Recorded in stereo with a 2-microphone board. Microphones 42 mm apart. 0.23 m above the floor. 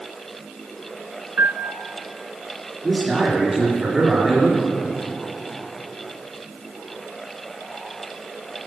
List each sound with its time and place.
1.4 s a piano: 65° right (ahead or behind), 0.6 m
2.8 s a man speaking: 10° right (ahead or behind), 3.5 m